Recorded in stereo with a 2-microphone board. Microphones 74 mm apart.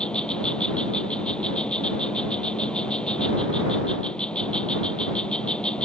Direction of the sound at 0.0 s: 10° left (ahead or behind).